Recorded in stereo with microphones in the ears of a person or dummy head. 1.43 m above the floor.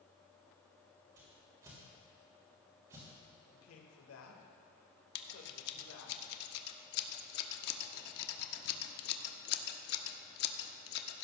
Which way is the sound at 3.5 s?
80° left.